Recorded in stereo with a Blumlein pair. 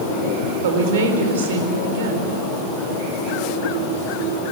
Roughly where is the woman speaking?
Ahead right.